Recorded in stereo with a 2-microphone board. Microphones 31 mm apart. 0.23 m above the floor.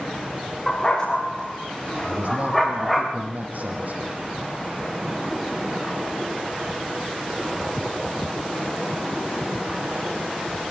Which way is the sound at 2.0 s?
55° right (ahead or behind).